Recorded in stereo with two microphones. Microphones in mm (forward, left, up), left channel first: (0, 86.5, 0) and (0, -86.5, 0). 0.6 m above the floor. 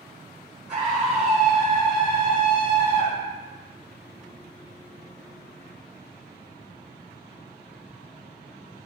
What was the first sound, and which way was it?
A scream, 50° right (ahead or behind).